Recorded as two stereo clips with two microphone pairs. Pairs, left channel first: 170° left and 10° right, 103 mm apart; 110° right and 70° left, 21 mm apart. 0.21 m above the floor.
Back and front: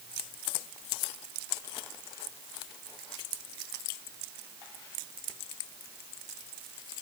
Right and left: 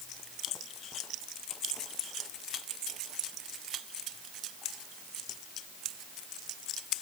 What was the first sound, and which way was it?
Only background noise.